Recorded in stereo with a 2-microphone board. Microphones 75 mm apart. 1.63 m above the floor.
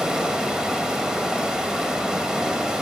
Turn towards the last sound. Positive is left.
turn(degrees=-10)  # may be behind; listen again after turning